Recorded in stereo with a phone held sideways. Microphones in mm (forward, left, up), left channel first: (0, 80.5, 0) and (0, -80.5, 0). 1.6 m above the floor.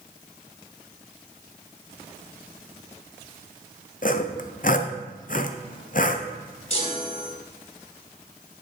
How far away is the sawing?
About 0.7 m.